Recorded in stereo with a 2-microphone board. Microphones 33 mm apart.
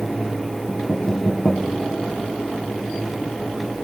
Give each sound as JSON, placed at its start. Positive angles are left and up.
{"t": 0.7, "sound": "knocking", "side_deg": 65, "distance_m": 6.0}